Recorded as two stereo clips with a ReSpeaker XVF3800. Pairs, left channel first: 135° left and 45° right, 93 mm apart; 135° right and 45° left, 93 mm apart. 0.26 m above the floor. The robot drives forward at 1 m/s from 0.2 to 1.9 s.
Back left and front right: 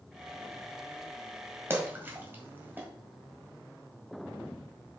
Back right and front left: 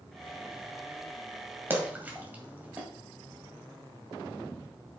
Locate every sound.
1.7 s a splash: 5° right, 1.8 m